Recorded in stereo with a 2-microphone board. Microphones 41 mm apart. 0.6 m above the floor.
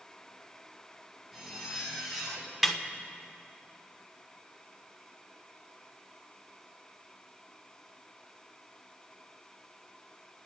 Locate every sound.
1.3 s a zipper: 5° right (ahead or behind), 3.5 m
2.6 s a snare drum: centre (ahead or behind), 1.2 m